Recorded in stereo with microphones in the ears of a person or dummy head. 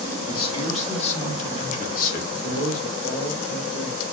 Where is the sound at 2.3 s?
50° left (ahead or behind), 3 m.